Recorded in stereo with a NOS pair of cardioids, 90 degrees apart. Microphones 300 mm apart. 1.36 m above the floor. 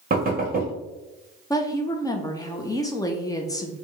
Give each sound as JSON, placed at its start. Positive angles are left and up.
{"t": 0.1, "sound": "knocking", "azimuth_deg": -30, "distance_m": 1.3}
{"t": 1.5, "sound": "a woman speaking", "azimuth_deg": 15, "distance_m": 0.8}